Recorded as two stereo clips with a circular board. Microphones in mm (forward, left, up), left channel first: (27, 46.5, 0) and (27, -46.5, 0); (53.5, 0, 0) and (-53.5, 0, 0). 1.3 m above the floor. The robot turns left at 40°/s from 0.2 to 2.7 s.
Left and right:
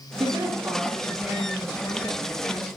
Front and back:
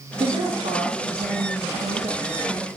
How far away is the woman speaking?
About 1.6 m.